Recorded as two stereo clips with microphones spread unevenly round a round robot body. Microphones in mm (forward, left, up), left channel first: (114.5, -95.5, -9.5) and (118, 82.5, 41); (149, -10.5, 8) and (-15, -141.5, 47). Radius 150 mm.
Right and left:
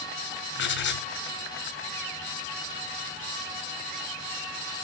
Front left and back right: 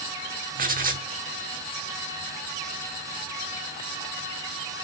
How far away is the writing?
About 2 m.